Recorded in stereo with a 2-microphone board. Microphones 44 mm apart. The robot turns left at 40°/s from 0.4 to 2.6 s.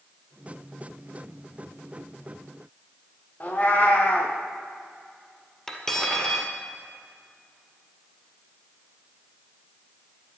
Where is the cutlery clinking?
10° left (ahead or behind), 1.9 m.